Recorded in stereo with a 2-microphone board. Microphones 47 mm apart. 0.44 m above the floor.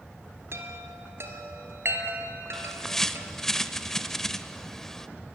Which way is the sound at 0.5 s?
65° right (ahead or behind).